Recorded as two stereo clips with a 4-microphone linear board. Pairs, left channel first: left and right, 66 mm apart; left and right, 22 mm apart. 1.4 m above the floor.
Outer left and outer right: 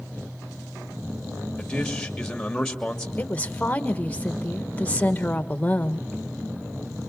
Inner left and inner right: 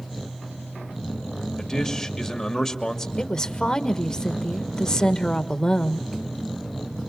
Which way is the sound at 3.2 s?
20° left (ahead or behind).